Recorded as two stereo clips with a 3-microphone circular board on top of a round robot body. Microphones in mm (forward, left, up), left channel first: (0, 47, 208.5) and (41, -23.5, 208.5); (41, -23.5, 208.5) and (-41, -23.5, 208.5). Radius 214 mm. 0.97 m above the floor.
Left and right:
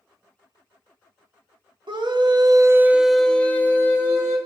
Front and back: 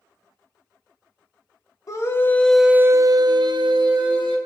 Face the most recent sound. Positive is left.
turn(degrees=175)